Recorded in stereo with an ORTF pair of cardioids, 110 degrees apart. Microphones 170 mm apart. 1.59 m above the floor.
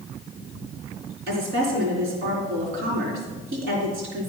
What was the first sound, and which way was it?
A woman speaking, 70° right.